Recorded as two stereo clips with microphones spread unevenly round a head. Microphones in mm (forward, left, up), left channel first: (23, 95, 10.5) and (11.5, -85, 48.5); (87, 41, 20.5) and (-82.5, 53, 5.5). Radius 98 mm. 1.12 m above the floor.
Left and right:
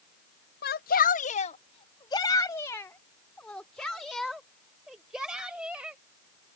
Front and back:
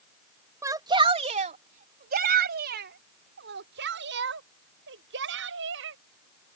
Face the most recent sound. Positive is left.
turn(degrees=-175)